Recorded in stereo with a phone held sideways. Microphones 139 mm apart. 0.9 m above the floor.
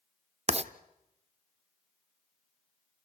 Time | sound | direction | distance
0.5 | writing | 45° right (ahead or behind) | 0.6 m